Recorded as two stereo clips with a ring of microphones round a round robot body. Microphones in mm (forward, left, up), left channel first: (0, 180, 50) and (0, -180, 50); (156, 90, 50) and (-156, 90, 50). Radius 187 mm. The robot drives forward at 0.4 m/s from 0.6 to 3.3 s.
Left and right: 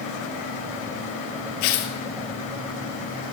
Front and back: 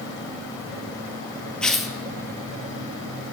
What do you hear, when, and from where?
1.6 s tearing paper: 85° left, 1.8 m; by 1.9 s 90° left, 1.8 m